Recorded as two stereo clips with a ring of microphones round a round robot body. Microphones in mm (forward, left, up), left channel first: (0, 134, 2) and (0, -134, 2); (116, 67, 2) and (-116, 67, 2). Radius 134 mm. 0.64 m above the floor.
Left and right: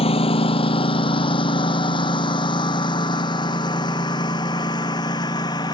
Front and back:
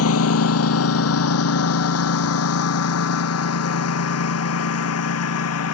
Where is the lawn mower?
20° left; by 5.7 s 15° left.